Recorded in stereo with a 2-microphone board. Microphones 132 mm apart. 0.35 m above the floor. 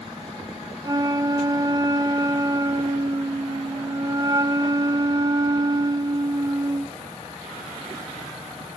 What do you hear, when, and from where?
0.8 s a flute: 30° right (ahead or behind), 0.6 m